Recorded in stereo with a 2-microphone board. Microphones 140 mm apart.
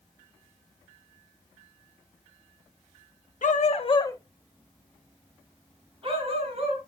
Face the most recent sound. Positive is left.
turn(degrees=-50)  # may be behind; listen again after turning